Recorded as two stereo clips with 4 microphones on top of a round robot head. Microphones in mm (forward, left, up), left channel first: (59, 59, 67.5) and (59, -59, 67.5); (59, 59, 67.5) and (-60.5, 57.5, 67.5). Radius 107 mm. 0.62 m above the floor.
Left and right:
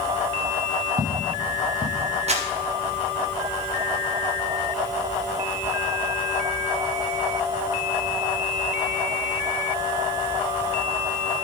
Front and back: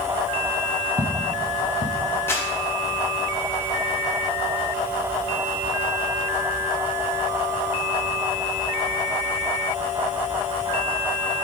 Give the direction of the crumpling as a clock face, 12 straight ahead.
2 o'clock.